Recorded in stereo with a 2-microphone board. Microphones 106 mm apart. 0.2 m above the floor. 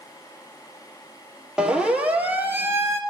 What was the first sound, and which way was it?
A siren, 5° right (ahead or behind).